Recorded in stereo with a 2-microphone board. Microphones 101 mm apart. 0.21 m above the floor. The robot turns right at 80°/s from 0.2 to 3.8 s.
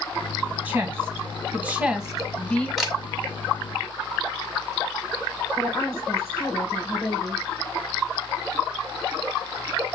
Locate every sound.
0.7 s a woman speaking: 15° right (ahead or behind), 1.2 m; by 2.7 s 10° left (ahead or behind), 1.2 m
2.8 s a camera shutter: centre (ahead or behind), 1.3 m; by 3.0 s 5° right (ahead or behind), 1.3 m
5.6 s a woman speaking: 30° left (ahead or behind), 2.5 m